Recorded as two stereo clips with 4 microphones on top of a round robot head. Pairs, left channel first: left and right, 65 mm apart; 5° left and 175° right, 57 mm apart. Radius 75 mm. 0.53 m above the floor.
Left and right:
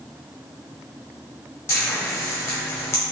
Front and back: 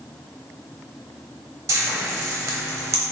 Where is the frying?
150° left, 0.8 m.